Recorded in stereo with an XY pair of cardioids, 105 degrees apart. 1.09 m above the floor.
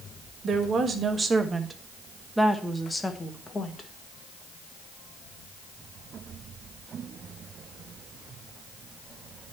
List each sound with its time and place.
0.4 s a woman speaking: 50° right, 1.5 m; by 3.9 s 35° left, 1.5 m